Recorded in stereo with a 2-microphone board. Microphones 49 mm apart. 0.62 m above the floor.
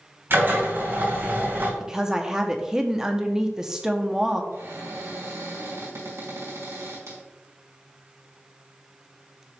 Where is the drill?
50° right (ahead or behind), 3 m.